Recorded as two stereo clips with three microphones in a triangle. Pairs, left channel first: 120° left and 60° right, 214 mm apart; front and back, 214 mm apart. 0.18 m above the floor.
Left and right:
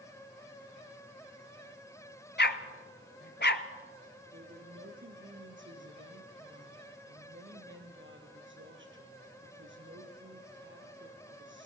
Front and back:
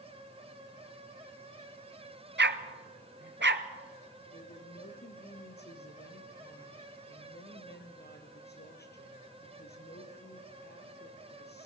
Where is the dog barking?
150° left, 0.9 m.